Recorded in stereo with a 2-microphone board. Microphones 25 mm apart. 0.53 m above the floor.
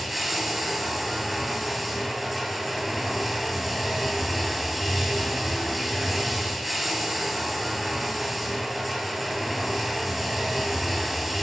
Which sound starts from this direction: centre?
Running water, at 0.0 s.